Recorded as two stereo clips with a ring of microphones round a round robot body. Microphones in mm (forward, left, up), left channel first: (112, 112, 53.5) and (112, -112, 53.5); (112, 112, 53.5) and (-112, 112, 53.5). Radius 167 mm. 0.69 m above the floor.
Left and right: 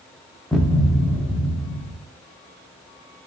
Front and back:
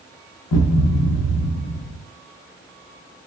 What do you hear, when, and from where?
0.5 s a thud: straight ahead, 0.8 m